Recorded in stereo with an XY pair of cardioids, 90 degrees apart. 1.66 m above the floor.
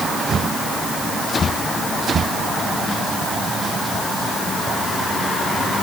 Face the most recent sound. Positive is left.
No sound to turn to.